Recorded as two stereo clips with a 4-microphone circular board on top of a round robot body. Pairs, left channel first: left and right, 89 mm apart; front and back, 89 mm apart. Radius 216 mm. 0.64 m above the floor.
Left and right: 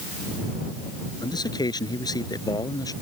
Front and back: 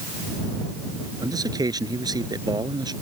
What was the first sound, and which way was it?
A man speaking, 135° left.